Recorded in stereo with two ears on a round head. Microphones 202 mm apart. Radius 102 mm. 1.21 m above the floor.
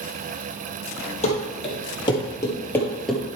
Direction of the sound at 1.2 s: 30° left (ahead or behind).